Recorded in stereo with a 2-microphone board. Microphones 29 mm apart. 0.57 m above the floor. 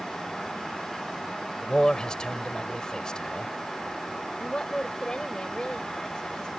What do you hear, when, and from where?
1.6 s a man speaking: 30° left (ahead or behind)
4.4 s a woman speaking: 25° left (ahead or behind)